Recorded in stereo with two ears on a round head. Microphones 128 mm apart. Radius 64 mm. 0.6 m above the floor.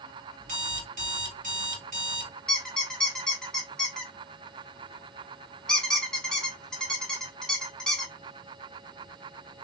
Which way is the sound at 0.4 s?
60° right (ahead or behind).